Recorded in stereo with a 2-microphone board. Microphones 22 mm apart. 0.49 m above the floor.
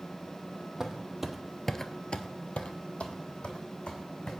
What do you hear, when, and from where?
0.8 s footsteps: 25° right (ahead or behind), 1.3 m; by 4.3 s 55° left (ahead or behind), 2.5 m